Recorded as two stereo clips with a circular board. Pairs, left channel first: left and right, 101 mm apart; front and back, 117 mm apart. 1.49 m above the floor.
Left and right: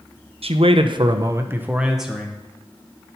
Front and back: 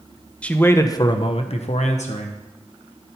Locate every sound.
0.4 s a man speaking: 80° right, 0.8 m; by 3.2 s 15° left, 1.6 m